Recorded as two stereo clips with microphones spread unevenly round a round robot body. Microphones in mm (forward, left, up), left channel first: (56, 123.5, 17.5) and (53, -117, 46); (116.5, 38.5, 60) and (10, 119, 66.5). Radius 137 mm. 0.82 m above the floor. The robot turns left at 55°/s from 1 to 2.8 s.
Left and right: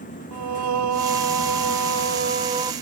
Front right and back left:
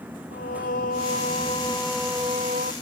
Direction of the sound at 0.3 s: 75° right.